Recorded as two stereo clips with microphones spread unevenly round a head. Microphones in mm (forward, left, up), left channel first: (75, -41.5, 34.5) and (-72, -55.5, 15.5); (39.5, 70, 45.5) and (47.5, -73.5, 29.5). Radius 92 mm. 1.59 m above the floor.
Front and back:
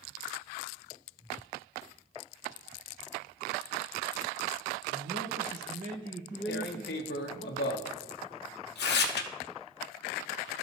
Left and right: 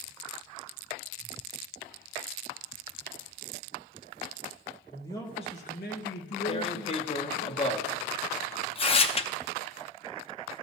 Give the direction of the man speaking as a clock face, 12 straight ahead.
6 o'clock.